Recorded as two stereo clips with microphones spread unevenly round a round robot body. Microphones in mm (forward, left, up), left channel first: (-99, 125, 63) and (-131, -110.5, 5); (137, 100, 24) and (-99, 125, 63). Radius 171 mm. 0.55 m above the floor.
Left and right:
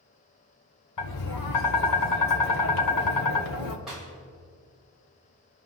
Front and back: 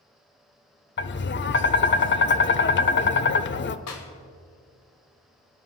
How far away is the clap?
About 1.8 m.